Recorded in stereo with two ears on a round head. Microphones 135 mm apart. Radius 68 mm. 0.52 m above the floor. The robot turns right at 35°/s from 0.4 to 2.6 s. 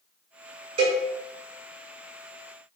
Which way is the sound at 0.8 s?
40° right (ahead or behind).